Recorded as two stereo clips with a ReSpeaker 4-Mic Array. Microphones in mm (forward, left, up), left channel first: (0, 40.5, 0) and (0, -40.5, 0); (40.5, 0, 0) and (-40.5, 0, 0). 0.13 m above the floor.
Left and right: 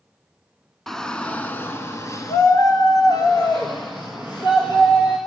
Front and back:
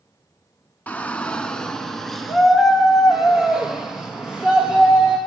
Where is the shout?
10° left, 1.1 m; by 5.2 s 105° left, 3 m.